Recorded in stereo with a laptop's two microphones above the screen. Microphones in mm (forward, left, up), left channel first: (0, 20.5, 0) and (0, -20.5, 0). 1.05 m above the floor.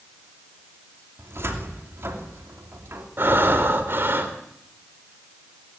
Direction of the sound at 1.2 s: 75° right (ahead or behind).